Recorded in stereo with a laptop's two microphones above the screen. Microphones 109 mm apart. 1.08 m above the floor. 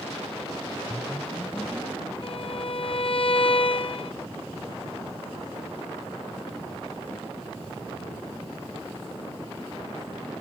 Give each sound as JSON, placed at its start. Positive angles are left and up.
{"t": 0.9, "sound": "a whoosh", "side_deg": 20}
{"t": 2.2, "sound": "a violin", "side_deg": 50}